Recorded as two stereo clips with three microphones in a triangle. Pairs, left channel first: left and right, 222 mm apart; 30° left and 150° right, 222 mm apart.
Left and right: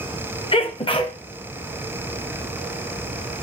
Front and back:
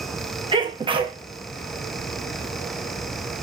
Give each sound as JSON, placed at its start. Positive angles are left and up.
{"t": 0.5, "sound": "a sneeze", "azimuth_deg": 150, "distance_m": 0.7}